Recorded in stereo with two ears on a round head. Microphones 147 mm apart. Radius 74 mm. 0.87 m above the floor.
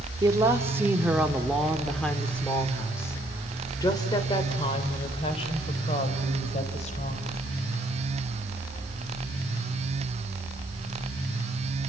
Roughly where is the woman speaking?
Right.